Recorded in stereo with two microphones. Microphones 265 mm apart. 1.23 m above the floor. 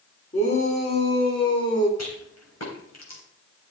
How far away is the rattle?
About 3.5 m.